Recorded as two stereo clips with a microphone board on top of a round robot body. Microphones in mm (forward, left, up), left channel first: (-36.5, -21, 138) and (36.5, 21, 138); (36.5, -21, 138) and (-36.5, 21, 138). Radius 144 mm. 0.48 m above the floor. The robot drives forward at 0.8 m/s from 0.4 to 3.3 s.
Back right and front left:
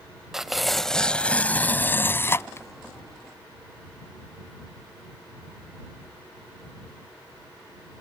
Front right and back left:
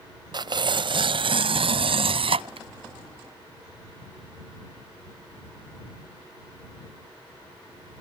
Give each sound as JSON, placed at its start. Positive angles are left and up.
{"t": 0.3, "sound": "tearing paper", "azimuth_deg": 115}